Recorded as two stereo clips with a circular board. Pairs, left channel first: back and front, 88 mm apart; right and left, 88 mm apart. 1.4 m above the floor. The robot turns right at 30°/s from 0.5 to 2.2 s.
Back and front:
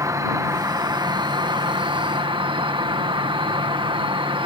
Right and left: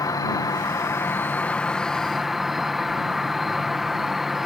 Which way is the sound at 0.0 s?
45° right.